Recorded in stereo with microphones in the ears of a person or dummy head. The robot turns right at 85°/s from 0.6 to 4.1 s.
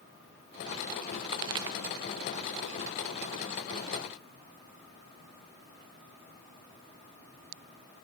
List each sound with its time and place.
1.3 s a pop: 20° right (ahead or behind), 0.5 m; by 1.8 s 15° right (ahead or behind), 0.5 m